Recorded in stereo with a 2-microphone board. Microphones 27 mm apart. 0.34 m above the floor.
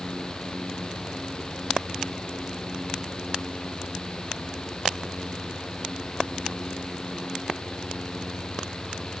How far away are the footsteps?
No footsteps in this recording.